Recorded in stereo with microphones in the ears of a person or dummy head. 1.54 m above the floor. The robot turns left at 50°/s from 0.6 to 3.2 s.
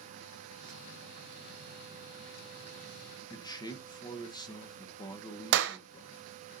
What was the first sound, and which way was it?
A man speaking, 20° left (ahead or behind).